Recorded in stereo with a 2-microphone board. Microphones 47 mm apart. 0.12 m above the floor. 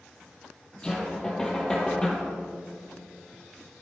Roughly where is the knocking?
Centre.